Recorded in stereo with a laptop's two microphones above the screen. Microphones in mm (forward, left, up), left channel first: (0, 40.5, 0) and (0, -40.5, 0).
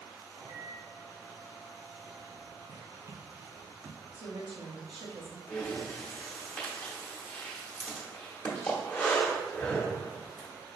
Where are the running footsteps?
50° right (ahead or behind), 1.6 m; by 4.0 s 5° right (ahead or behind), 1.6 m.